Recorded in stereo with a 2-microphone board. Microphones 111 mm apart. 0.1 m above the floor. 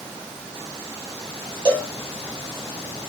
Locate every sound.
1.6 s a cowbell: 45° right (ahead or behind), 2.5 m